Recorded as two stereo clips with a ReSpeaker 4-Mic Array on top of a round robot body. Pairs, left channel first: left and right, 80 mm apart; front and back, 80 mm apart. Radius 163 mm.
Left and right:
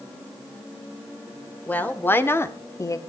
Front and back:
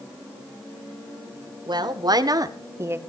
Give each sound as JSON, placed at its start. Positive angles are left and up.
{"t": 1.7, "sound": "a woman speaking", "azimuth_deg": 160, "distance_m": 3.0}